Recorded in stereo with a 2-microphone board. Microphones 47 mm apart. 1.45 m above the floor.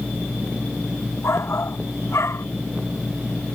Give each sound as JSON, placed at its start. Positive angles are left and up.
{"t": 1.2, "sound": "a shout", "side_deg": 80}